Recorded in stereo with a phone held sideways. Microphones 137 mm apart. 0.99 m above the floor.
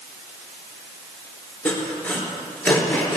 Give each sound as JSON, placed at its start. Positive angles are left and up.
{"t": 1.6, "sound": "sawing", "side_deg": 15, "distance_m": 3.0}